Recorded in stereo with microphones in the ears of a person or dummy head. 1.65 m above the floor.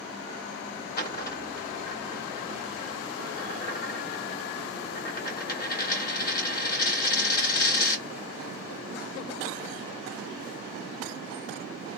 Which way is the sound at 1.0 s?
50° left (ahead or behind).